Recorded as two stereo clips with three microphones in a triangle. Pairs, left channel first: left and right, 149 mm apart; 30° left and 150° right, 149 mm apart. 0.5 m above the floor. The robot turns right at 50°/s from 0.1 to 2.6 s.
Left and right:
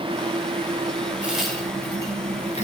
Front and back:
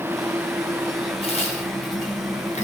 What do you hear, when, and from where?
1.2 s a crack: 10° right, 1.9 m; by 2.6 s 60° left, 1.9 m